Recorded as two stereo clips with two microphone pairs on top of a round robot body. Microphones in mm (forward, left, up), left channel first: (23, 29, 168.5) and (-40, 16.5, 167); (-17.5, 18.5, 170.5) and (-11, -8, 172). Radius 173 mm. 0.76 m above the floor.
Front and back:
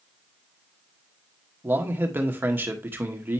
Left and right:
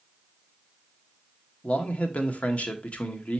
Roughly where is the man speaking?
Behind left.